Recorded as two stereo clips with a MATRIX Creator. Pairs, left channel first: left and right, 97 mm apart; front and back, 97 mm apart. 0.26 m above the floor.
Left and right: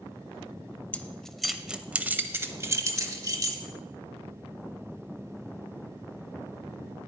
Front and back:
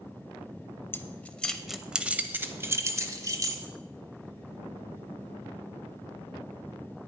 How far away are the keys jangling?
About 0.8 m.